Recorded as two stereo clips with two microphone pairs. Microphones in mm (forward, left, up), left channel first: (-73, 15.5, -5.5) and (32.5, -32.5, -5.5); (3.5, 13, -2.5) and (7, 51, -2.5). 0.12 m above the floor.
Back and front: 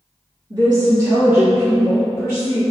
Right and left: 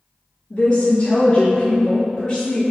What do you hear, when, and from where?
0.5 s a woman speaking: 35° right, 1.7 m; by 2.6 s 155° right, 1.9 m